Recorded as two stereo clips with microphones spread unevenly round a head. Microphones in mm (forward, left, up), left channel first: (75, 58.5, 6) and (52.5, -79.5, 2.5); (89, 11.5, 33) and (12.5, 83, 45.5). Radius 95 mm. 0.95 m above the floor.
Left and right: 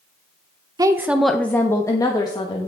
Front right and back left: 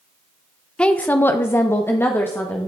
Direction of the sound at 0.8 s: 95° right.